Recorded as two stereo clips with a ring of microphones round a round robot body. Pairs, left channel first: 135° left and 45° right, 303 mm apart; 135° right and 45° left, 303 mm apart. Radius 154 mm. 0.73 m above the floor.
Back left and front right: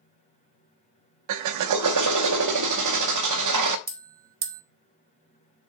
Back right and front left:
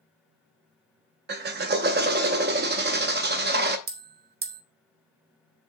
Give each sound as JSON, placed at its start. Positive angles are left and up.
{"t": 1.3, "sound": "a drill", "azimuth_deg": -15, "distance_m": 0.7}
{"t": 3.9, "sound": "a bell", "azimuth_deg": 0, "distance_m": 1.0}